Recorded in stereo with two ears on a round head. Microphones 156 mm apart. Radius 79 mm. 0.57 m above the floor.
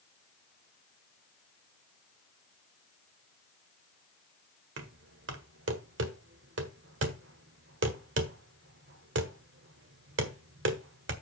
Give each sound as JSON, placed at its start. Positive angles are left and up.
{"t": 4.8, "sound": "knocking", "side_deg": -70, "distance_m": 1.5}